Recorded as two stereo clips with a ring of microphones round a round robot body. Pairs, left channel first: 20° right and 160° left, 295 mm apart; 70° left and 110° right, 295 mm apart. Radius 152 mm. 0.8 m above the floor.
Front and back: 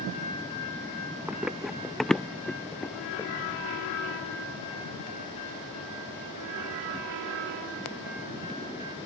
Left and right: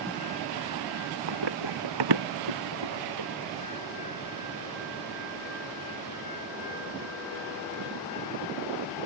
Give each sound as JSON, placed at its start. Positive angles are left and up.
{"t": 1.3, "sound": "running footsteps", "azimuth_deg": -115}